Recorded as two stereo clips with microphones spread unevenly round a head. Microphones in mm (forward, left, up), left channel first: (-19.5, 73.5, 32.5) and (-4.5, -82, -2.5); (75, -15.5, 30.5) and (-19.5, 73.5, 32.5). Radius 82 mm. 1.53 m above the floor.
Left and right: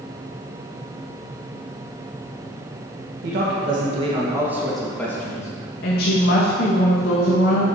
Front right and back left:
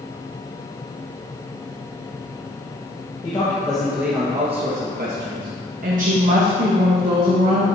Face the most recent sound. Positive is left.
turn(degrees=120)